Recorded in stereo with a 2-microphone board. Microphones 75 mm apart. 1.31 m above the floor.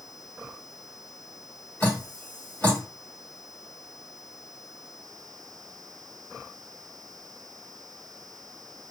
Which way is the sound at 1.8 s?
25° left (ahead or behind).